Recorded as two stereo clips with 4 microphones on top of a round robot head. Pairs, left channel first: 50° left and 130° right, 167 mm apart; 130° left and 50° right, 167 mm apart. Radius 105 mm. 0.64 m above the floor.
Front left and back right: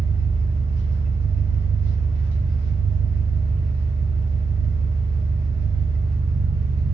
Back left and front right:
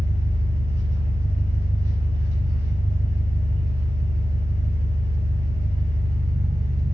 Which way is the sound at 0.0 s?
90° right.